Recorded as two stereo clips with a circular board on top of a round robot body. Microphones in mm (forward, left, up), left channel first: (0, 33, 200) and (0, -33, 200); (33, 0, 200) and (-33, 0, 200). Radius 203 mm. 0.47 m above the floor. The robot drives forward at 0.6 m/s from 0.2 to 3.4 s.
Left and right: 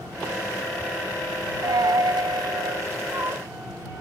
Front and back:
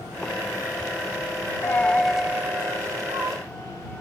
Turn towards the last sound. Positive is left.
turn(degrees=-150)